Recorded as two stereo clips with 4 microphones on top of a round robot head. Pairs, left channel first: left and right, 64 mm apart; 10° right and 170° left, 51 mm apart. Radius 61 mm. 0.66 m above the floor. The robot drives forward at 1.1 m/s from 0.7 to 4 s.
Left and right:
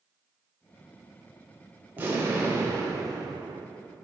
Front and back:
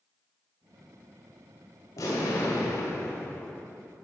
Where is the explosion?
25° right, 1.9 m; by 3.7 s 100° right, 0.8 m.